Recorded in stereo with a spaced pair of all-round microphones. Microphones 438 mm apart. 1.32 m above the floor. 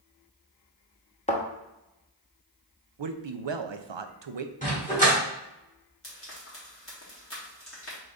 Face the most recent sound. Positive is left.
turn(degrees=30)  # may be behind; listen again after turning